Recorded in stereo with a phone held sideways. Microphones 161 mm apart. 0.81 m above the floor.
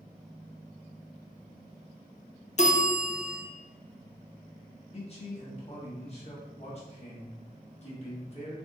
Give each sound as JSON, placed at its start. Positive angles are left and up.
{"t": 2.6, "sound": "a bell", "side_deg": 45, "distance_m": 0.5}
{"t": 4.9, "sound": "a man speaking", "side_deg": 40, "distance_m": 1.1}